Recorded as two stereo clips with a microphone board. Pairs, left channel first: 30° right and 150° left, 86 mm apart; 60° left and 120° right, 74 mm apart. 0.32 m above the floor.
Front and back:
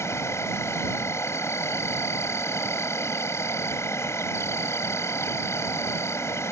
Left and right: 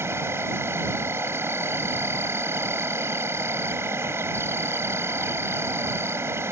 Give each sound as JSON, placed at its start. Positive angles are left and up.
{"t": 0.0, "sound": "an insect", "azimuth_deg": -75}